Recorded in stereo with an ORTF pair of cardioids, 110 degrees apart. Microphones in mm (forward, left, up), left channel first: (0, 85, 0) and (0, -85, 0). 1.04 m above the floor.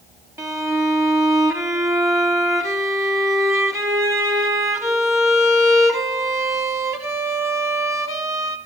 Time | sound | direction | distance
0.4 | a violin | 15° right | 1.0 m